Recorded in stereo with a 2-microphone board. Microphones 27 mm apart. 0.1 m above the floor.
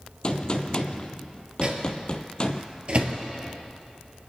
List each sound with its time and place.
0.2 s a gunshot: 35° left (ahead or behind), 0.9 m
1.6 s a microwave: 45° right (ahead or behind), 1.7 m